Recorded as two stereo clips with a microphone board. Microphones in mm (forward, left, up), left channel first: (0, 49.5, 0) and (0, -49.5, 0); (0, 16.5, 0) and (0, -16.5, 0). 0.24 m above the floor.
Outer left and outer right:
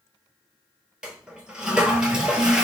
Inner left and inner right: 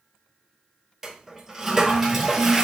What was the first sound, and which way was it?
A toilet flushing, 10° right (ahead or behind).